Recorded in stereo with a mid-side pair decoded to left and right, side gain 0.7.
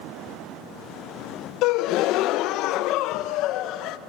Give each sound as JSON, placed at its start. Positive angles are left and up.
{"t": 1.6, "sound": "a gasp", "azimuth_deg": 60, "distance_m": 0.6}